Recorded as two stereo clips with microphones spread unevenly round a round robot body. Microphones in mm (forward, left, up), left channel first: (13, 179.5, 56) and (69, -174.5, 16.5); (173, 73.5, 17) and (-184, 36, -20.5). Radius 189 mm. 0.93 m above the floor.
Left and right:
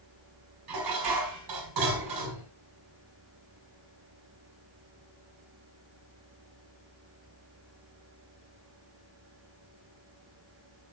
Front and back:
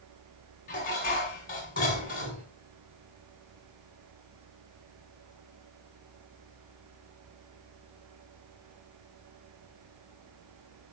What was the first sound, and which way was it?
Dishes clattering, 60° right.